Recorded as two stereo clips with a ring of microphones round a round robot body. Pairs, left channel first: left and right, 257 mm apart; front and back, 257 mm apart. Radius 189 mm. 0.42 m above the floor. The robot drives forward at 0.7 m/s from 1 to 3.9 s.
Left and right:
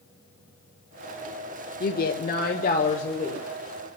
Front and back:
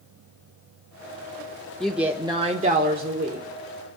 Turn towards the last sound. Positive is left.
turn(degrees=160)